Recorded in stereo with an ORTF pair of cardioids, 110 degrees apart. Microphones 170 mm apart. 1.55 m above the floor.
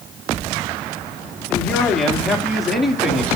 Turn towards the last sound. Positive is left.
turn(degrees=0)